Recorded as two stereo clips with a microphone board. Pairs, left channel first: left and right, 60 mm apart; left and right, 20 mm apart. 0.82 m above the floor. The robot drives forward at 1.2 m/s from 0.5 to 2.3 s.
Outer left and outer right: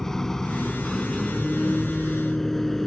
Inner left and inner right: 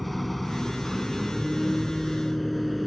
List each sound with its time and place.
0.0 s a vehicle: 10° left (ahead or behind); by 2.9 s 5° left (ahead or behind)